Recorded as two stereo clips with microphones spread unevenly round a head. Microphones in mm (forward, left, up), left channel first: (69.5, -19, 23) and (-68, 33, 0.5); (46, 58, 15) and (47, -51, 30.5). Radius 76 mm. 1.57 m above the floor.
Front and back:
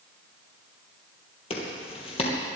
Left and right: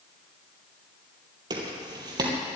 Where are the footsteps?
55° right, 3 m.